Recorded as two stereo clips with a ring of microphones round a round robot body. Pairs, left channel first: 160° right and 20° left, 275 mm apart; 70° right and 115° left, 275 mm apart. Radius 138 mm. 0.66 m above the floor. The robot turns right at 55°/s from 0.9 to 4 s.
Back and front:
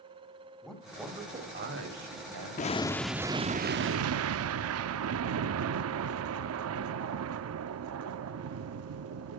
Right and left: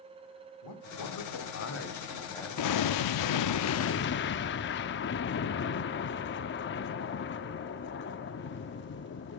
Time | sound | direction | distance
0.6 | a man speaking | 70° right | 4.5 m
2.6 | an explosion | 95° right | 0.6 m